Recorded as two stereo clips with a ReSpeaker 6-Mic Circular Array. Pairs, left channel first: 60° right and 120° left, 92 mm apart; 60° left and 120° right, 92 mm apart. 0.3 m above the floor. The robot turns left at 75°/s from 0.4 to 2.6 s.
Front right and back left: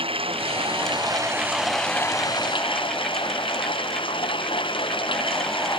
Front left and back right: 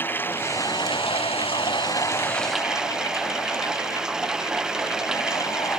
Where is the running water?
130° left; by 5.8 s 35° right.